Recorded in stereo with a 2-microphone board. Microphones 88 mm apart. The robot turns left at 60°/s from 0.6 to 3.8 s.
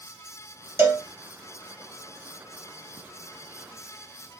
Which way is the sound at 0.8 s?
30° right (ahead or behind).